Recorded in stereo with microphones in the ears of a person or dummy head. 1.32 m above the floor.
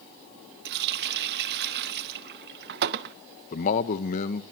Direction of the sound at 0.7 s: 55° right (ahead or behind).